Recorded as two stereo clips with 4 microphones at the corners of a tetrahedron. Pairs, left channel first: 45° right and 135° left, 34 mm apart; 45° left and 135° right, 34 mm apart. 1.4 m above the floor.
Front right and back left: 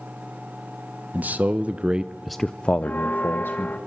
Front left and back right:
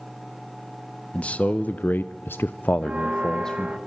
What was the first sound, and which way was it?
A man speaking, 100° left.